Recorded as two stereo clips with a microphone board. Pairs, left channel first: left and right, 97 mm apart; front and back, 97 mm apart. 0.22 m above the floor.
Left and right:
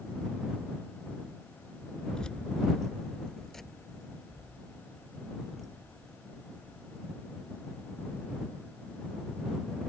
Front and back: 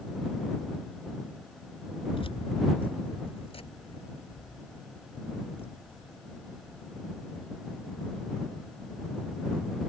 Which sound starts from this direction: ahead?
Keys jangling, at 2.1 s.